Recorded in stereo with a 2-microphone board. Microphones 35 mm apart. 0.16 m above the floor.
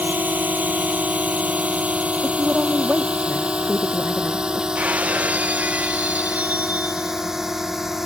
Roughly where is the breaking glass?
Right.